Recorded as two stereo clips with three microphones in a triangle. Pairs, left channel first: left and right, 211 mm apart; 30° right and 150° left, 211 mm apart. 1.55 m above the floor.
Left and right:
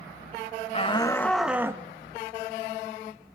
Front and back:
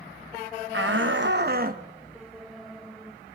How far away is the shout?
About 1.4 m.